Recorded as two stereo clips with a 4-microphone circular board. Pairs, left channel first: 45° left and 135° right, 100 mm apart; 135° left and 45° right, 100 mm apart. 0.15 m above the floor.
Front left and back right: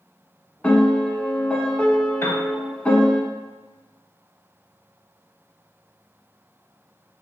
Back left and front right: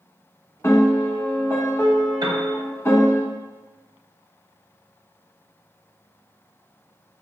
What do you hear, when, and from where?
0.6 s a piano: 110° left, 0.7 m
2.2 s a piano: 15° right, 0.8 m